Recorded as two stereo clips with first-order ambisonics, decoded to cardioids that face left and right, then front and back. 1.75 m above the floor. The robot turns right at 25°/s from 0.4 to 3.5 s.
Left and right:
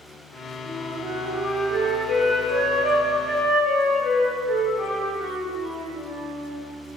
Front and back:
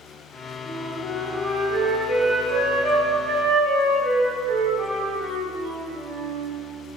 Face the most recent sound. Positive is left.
turn(degrees=160)